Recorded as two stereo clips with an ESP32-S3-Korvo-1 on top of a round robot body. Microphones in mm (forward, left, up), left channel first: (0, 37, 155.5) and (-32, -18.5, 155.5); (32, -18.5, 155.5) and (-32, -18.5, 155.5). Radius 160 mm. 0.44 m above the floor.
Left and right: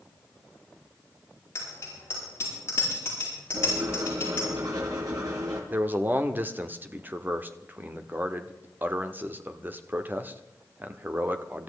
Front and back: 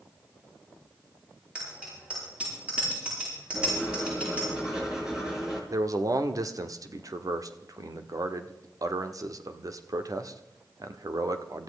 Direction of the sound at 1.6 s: 110° left.